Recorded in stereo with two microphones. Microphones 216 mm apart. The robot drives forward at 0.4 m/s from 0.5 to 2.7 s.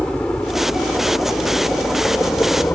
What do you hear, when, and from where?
0.0 s a helicopter: 5° left (ahead or behind); by 2.8 s 10° left (ahead or behind)